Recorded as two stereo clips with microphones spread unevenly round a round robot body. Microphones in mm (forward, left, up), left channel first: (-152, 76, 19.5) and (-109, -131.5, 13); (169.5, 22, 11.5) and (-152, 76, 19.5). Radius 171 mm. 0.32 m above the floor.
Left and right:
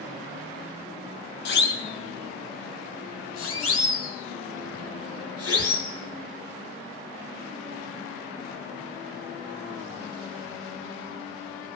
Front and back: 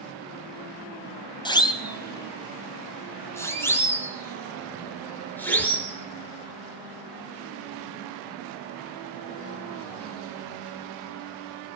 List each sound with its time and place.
1.4 s a siren: 65° left, 2.5 m; by 5.9 s 75° left, 7 m